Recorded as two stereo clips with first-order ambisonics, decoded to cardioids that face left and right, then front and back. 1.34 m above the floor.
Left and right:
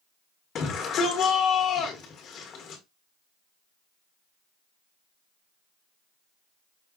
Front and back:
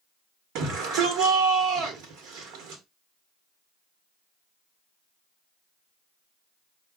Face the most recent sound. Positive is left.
turn(degrees=150)